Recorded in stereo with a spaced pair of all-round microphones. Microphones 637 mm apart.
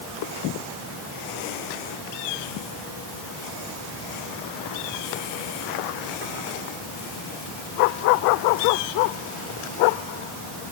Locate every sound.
Only background noise.